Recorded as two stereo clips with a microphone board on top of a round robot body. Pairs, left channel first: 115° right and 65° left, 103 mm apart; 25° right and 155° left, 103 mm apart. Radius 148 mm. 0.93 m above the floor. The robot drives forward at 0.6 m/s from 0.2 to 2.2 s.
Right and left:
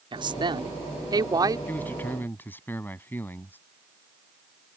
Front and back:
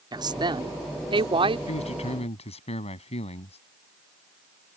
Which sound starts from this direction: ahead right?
A man speaking, at 1.7 s.